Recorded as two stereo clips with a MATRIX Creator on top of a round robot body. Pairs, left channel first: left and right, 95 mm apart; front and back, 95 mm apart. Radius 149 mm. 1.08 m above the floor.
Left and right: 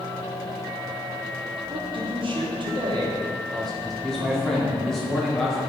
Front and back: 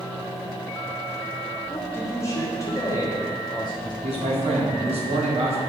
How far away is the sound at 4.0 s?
About 3 m.